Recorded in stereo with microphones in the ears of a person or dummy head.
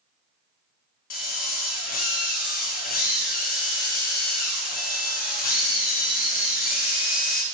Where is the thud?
No thud in this recording.